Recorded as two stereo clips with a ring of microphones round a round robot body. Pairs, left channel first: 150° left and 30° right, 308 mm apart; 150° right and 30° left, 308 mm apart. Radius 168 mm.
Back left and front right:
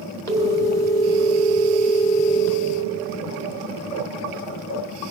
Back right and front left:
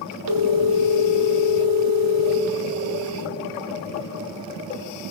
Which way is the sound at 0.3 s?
70° left.